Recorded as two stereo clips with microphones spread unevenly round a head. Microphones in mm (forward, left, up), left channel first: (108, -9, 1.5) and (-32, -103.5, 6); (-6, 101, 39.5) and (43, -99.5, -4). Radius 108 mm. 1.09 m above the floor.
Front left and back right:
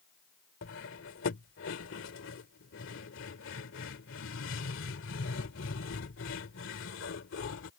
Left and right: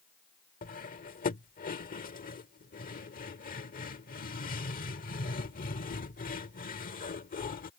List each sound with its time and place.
0.6 s cutlery clinking: 55° left